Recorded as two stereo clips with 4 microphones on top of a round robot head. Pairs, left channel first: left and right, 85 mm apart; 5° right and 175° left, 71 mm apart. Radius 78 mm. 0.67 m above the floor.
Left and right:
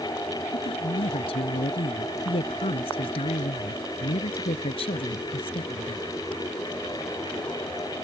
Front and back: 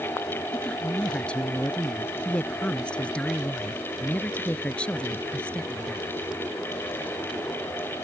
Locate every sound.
0.5 s a woman speaking: 70° left